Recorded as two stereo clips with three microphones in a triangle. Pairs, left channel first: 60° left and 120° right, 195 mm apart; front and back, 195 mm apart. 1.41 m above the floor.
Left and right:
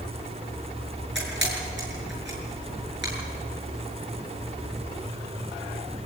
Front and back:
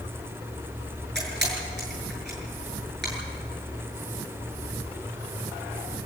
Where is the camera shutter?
145° right, 7 m.